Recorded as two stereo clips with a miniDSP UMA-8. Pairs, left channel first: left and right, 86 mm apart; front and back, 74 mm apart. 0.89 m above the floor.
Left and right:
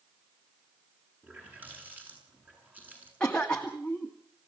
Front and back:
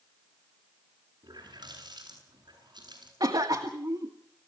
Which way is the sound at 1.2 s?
160° right.